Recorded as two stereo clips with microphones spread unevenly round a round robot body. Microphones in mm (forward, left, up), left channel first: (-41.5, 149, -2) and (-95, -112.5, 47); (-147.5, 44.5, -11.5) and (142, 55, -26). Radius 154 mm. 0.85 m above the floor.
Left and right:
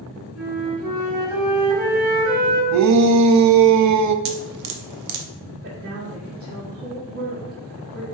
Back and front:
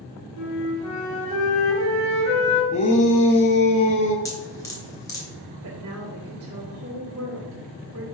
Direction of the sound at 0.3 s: Straight behind.